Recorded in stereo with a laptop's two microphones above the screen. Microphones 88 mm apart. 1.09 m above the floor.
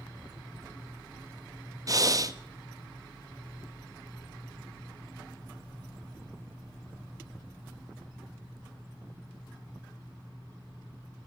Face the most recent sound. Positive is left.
turn(degrees=-40)  # may be behind; listen again after turning